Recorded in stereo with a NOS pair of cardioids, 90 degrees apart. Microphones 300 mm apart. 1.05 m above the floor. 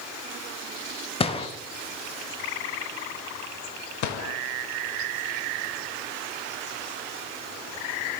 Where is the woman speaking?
No woman speaking in this recording.